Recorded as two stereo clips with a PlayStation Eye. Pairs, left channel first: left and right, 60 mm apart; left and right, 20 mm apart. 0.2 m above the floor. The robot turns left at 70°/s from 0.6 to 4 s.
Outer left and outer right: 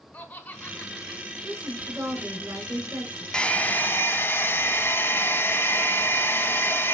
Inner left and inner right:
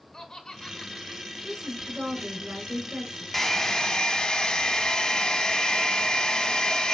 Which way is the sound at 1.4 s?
20° right.